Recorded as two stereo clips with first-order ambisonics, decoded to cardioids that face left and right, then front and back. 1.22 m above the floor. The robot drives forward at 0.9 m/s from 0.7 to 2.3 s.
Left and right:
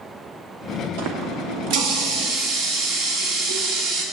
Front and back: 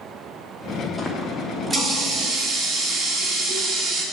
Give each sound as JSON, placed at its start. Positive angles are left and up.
{"t": 1.0, "sound": "a running tap", "azimuth_deg": -80, "distance_m": 1.5}